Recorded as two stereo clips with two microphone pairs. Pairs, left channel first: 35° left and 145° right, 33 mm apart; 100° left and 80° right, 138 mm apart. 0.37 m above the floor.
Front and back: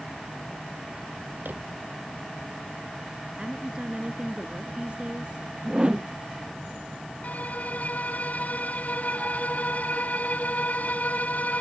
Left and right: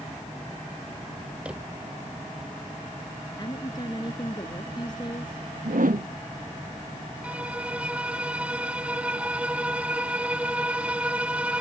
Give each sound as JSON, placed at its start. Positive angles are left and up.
{"t": 1.4, "sound": "a drawer", "azimuth_deg": -165}
{"t": 3.4, "sound": "a woman speaking", "azimuth_deg": 155}
{"t": 5.7, "sound": "a whoosh", "azimuth_deg": -90}
{"t": 7.2, "sound": "a violin", "azimuth_deg": 0}